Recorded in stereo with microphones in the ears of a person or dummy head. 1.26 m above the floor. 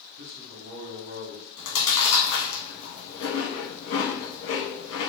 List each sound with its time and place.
0.2 s a man speaking: 55° right (ahead or behind), 1.6 m
1.6 s chewing: 90° left, 1.3 m